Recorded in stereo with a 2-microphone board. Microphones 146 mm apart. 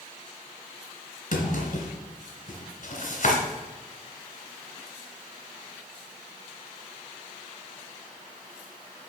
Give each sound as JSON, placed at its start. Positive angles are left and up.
{"t": 1.3, "sound": "a drawer", "side_deg": 55, "distance_m": 2.0}